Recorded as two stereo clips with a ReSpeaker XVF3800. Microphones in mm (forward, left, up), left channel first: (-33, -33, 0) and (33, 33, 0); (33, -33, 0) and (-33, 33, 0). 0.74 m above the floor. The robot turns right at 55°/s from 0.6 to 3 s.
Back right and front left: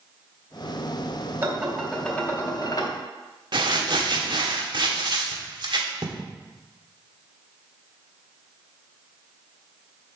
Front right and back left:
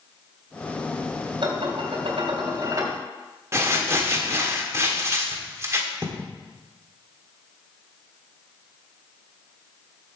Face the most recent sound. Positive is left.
turn(degrees=75)